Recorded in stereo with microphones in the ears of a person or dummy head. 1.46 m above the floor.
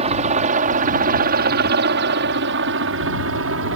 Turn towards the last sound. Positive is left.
turn(degrees=-70)  # may be behind; listen again after turning